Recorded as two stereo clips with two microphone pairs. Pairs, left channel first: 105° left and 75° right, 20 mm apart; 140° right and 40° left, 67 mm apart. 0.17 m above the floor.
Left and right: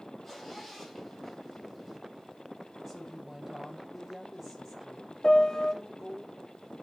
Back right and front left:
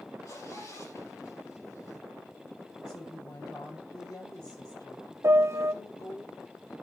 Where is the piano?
65° left, 0.6 m.